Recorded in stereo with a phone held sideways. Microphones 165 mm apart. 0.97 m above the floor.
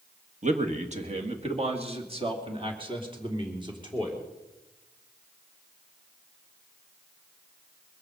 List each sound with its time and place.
0.4 s a man speaking: 50° right (ahead or behind), 1.6 m; by 4.3 s 25° right (ahead or behind), 3.5 m